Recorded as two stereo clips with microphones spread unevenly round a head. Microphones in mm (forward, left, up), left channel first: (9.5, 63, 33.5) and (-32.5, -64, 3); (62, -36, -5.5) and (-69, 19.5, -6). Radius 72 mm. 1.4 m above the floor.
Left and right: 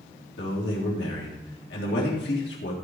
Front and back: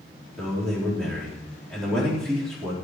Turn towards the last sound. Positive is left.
turn(degrees=65)